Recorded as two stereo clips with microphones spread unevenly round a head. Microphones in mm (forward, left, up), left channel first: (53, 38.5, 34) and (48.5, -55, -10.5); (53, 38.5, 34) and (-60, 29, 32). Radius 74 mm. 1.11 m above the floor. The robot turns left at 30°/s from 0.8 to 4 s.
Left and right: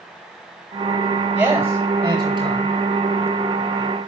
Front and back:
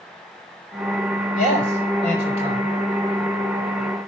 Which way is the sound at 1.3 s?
15° right.